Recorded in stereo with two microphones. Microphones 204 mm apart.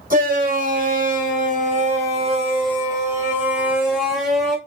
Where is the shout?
40° right (ahead or behind), 1.9 m; by 4.6 s 5° left (ahead or behind), 1.6 m.